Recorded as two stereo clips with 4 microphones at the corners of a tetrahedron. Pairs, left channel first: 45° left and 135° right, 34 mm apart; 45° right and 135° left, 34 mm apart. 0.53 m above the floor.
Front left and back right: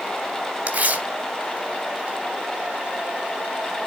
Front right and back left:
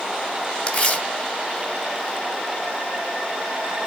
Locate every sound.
0.7 s tearing paper: 90° right, 2 m